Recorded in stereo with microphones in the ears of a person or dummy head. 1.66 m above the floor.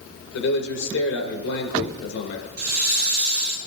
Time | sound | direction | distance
0.3 | a man speaking | 80° left | 2.5 m
2.6 | a hiss | 45° right (ahead or behind) | 3.5 m